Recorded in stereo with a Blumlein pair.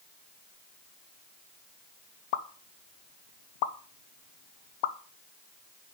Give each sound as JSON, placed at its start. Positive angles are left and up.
{"t": 2.3, "sound": "a pop", "azimuth_deg": 50, "distance_m": 0.6}